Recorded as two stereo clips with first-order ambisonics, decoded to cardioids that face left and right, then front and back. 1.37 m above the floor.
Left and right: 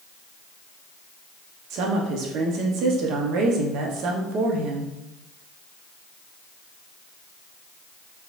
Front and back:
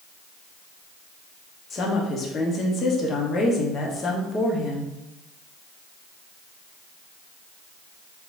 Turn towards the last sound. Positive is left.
turn(degrees=-60)